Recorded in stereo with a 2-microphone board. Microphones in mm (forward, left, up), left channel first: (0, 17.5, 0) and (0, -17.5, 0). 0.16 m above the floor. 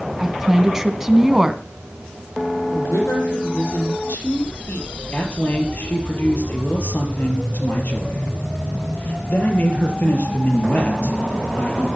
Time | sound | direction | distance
0.2 | a woman speaking | 15° right (ahead or behind) | 1.6 m
2.7 | a woman speaking | 70° left (ahead or behind) | 5 m
5.1 | a man speaking | 50° left (ahead or behind) | 4 m